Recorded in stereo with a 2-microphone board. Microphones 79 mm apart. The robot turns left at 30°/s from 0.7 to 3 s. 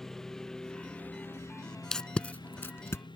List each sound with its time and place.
0.0 s a lawn mower: 5° left (ahead or behind); by 3.2 s 90° left
1.9 s tape being pulled: 5° left (ahead or behind); by 3.0 s 40° left (ahead or behind)